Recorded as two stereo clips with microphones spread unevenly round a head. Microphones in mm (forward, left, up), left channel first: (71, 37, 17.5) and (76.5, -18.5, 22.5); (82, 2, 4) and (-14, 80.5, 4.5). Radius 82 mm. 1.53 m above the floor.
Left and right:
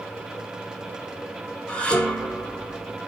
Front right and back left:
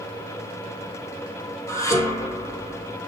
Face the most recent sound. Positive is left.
turn(degrees=25)